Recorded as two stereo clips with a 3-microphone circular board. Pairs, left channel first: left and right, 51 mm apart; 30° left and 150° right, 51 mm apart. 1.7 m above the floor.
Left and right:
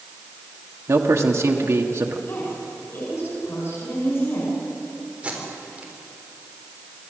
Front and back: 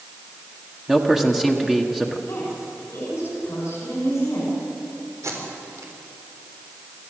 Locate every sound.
0.9 s a man speaking: 65° right, 1.5 m
2.3 s a woman speaking: 60° left, 6 m
5.2 s tape being pulled: 155° right, 3.5 m